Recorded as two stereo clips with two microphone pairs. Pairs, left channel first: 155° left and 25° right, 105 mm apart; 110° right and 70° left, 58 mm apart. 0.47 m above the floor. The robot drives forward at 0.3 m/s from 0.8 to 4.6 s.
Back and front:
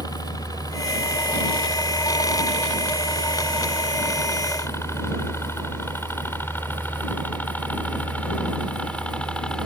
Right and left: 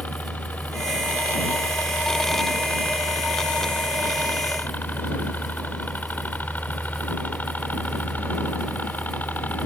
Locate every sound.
0.0 s a helicopter: 165° right; by 9.7 s 130° right